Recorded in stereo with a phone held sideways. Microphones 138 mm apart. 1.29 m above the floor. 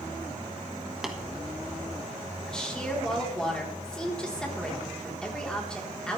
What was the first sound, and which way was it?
Tapping, 5° right (ahead or behind).